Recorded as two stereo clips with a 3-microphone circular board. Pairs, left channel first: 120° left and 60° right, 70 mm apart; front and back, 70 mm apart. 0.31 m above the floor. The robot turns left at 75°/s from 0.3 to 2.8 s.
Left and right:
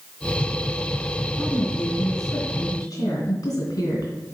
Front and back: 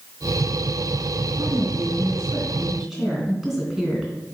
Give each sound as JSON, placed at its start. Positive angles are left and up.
{"t": 1.4, "sound": "a woman speaking", "azimuth_deg": -160, "distance_m": 3.0}